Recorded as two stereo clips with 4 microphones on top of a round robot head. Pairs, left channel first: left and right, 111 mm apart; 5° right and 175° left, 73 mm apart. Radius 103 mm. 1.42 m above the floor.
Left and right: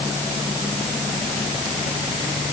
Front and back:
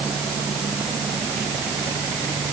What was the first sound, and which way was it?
Only background noise.